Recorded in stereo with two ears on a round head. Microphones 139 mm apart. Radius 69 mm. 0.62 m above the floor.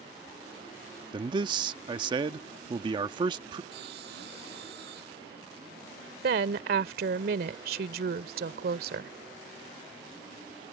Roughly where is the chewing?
No chewing in this recording.